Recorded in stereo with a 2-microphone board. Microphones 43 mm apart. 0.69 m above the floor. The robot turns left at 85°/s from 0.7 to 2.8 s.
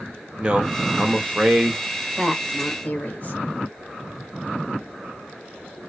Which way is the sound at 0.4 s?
20° right (ahead or behind).